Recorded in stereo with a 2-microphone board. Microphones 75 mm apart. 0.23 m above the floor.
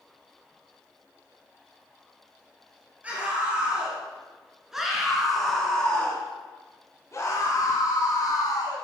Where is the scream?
20° right (ahead or behind), 3.5 m; by 8.8 s 65° left (ahead or behind), 2 m.